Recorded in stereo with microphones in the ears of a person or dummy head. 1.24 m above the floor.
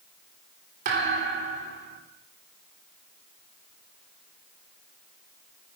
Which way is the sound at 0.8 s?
50° right (ahead or behind).